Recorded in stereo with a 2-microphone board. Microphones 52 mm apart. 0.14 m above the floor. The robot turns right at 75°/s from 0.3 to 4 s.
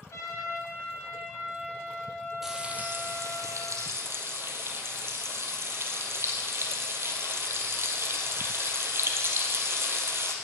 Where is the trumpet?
80° left, 3.5 m; by 3.4 s 45° right, 3.5 m.